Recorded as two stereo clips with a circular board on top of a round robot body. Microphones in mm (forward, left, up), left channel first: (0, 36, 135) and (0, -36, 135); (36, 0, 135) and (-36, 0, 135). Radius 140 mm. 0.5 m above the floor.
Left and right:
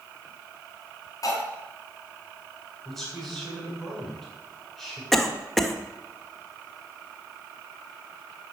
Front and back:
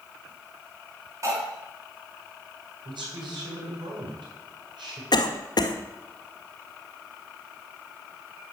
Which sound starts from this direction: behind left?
Cutlery clinking, at 1.2 s.